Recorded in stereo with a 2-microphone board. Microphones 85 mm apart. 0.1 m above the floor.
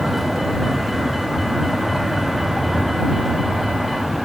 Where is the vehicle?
Centre (ahead or behind).